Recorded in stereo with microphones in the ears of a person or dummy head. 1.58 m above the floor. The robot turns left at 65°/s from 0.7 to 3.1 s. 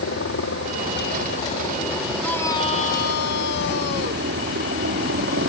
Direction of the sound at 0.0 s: 95° left.